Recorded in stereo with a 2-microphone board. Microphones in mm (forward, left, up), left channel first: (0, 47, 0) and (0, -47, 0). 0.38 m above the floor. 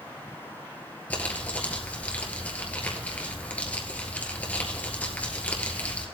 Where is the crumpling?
15° left (ahead or behind), 1.8 m.